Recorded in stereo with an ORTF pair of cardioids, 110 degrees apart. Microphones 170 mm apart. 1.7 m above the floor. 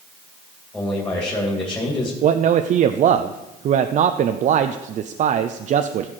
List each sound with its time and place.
0.7 s a man speaking: 10° left, 3 m
2.2 s a man speaking: 50° right, 0.6 m